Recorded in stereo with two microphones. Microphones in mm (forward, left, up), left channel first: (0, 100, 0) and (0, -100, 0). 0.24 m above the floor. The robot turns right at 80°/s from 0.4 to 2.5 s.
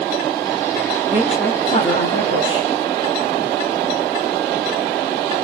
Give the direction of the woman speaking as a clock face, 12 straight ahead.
1 o'clock.